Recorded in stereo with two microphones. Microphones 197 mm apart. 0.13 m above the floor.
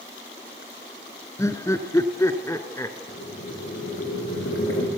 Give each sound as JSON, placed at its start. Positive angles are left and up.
{"t": 1.4, "sound": "laughter", "side_deg": 15, "distance_m": 1.4}
{"t": 3.1, "sound": "boiling", "side_deg": 85, "distance_m": 5.5}